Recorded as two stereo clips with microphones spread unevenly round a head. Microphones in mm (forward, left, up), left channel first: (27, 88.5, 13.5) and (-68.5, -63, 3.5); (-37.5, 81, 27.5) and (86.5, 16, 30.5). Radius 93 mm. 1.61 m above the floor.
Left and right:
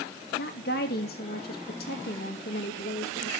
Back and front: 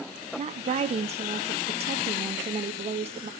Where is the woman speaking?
15° left, 2.5 m.